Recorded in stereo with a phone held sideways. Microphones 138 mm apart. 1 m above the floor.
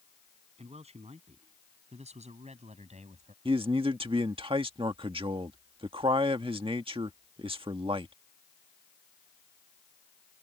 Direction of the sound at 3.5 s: 40° right (ahead or behind).